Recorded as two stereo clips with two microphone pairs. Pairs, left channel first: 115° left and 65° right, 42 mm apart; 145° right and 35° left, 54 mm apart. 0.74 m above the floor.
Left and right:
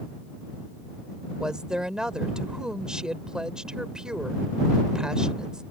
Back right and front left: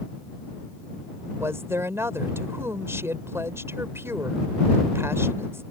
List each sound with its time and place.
1.4 s a woman speaking: 5° left